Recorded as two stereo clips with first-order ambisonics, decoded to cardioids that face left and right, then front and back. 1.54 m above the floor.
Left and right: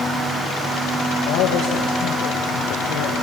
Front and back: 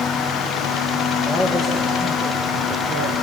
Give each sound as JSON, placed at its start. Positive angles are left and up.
{"t": 1.2, "sound": "a man speaking", "azimuth_deg": 105, "distance_m": 2.0}